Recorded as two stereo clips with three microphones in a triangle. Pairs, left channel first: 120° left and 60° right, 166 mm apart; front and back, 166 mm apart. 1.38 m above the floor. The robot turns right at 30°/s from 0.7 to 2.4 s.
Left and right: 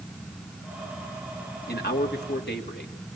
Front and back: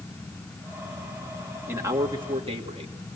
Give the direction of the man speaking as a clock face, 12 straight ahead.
9 o'clock.